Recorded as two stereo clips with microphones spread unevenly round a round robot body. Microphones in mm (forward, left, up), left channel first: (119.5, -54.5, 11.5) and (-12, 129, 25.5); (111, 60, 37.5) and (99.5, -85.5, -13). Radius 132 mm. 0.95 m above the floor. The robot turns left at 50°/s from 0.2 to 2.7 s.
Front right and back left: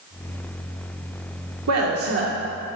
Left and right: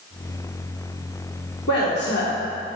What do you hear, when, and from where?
1.7 s a woman speaking: 120° left, 2.5 m; by 2.3 s 90° left, 2.5 m